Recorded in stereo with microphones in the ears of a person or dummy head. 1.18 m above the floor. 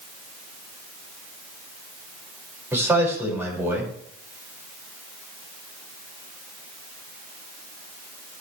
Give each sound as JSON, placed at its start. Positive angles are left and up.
{"t": 2.7, "sound": "a man speaking", "side_deg": -15, "distance_m": 5.5}